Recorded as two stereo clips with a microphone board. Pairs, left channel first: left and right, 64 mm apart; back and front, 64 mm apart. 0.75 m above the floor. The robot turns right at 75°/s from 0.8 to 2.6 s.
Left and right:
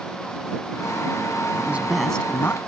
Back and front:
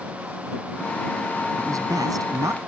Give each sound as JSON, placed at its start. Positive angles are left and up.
{"t": 1.6, "sound": "a man speaking", "azimuth_deg": -30}